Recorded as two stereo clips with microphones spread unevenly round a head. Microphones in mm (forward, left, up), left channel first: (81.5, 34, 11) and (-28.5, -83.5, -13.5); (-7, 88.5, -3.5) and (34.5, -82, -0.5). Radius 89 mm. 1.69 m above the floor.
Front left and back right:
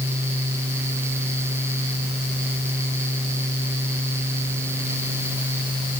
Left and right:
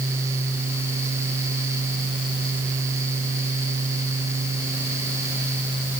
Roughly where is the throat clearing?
No throat clearing in this recording.